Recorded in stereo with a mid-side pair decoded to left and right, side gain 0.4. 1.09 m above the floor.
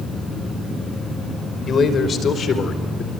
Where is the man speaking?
50° left, 5 m; by 3.1 s 65° left, 3.5 m.